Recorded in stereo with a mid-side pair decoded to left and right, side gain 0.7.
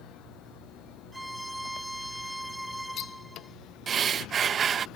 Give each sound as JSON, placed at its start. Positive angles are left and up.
{"t": 1.1, "sound": "a violin", "azimuth_deg": -5}
{"t": 3.9, "sound": "breathing", "azimuth_deg": -35}